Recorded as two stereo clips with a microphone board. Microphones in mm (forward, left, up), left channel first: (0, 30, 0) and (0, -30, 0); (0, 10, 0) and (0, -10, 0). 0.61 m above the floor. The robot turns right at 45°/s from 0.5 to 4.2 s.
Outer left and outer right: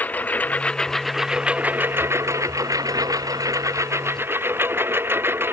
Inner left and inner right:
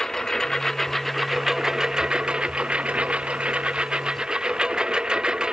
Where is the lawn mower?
155° left; by 5.5 s 40° right.